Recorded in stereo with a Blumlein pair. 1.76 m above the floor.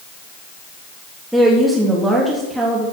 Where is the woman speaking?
5° right, 3.5 m.